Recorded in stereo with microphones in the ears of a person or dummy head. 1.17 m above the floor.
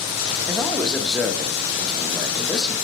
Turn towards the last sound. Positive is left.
turn(degrees=0)  # may be behind; listen again after turning